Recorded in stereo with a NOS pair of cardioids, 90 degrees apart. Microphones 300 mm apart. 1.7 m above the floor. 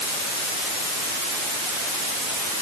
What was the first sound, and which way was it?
Only background noise.